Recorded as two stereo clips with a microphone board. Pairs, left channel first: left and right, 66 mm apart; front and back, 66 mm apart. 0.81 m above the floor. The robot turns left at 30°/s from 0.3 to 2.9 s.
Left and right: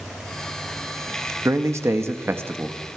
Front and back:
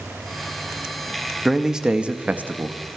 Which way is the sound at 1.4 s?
95° right.